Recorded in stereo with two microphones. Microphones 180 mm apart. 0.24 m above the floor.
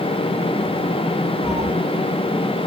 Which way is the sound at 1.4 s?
85° right.